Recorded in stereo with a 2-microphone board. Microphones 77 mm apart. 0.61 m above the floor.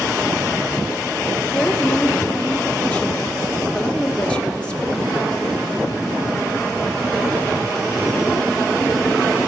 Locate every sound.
1.5 s a woman speaking: 15° left (ahead or behind), 1.2 m